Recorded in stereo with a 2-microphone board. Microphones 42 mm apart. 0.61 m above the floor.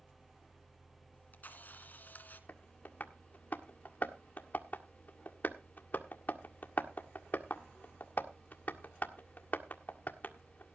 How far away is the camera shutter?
About 2.0 m.